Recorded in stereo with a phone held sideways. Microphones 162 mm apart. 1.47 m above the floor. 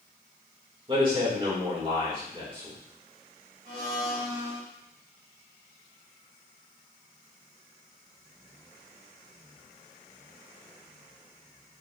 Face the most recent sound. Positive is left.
turn(degrees=-75)  # may be behind; listen again after turning